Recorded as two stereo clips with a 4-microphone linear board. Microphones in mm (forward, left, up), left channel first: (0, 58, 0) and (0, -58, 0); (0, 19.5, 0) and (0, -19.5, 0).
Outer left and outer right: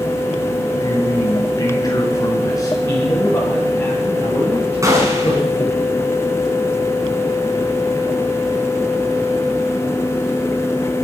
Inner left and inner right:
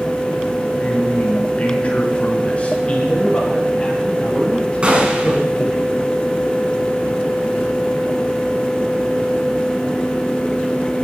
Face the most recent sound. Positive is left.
turn(degrees=-30)  # may be behind; listen again after turning